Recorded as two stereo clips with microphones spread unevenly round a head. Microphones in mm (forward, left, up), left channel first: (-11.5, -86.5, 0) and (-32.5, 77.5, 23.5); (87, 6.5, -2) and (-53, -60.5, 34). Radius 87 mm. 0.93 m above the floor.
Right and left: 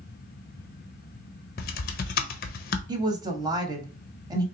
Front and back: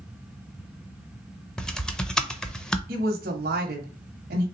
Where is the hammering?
No hammering in this recording.